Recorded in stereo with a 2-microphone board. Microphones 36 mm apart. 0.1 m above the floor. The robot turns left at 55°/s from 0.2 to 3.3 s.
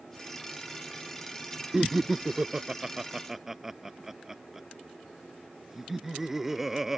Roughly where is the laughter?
Centre.